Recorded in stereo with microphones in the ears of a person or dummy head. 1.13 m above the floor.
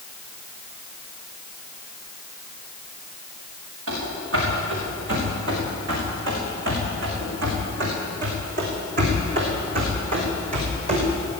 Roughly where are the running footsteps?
Right.